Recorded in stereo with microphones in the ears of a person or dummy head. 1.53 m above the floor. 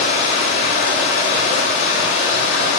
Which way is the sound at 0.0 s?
75° left (ahead or behind).